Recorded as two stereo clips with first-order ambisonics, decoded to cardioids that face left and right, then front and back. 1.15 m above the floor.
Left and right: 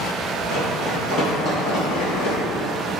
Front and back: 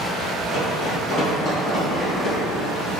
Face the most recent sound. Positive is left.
turn(degrees=90)